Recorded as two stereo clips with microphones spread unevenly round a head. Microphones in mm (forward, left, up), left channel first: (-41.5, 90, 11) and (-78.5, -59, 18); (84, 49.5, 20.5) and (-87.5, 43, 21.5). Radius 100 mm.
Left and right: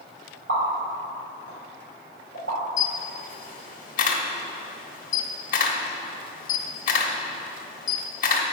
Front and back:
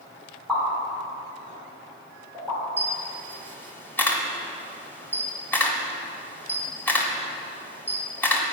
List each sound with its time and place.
0.5 s a pop: 85° right, 2.5 m
2.8 s a camera shutter: 75° left, 0.9 m